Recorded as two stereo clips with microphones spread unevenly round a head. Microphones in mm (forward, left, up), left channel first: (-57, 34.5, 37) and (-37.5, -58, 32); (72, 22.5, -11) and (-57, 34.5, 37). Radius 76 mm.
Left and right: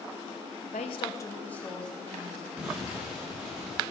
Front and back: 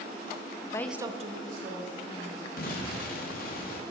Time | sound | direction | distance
0.7 | a woman speaking | 70° left | 0.6 m
2.6 | an explosion | straight ahead | 1.3 m